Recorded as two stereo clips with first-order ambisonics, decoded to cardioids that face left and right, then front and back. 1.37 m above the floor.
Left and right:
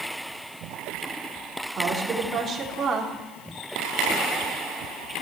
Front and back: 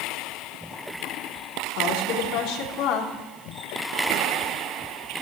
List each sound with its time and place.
1.8 s a woman speaking: 20° right, 3.5 m